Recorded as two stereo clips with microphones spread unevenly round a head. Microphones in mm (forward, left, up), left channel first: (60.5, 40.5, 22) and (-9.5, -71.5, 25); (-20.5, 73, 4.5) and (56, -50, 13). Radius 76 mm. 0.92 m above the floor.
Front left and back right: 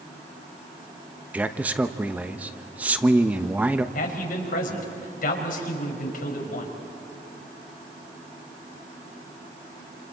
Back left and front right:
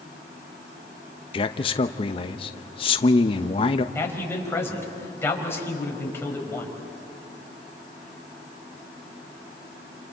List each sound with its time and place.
1.3 s a man speaking: 160° left, 0.8 m
4.0 s a man speaking: 50° left, 4.5 m